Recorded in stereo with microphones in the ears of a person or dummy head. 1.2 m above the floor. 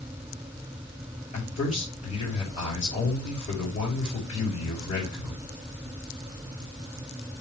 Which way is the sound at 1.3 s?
35° left (ahead or behind).